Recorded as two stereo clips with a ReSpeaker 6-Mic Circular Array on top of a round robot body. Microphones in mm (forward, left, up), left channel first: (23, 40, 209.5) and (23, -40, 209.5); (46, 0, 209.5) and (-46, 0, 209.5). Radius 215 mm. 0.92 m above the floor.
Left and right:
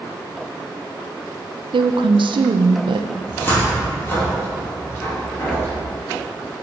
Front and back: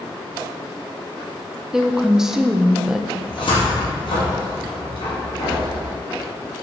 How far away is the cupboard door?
About 2 m.